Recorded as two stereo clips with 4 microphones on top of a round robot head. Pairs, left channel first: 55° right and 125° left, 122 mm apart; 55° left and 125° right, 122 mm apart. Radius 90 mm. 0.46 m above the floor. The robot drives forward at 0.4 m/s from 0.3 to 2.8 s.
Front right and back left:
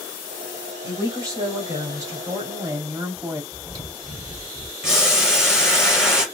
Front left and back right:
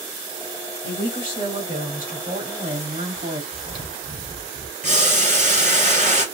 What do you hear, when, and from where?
0.8 s a woman speaking: 170° right, 2.5 m; by 3.4 s 175° right, 3.5 m
3.5 s chewing: 175° right, 2 m
4.8 s boiling: 150° right, 2.5 m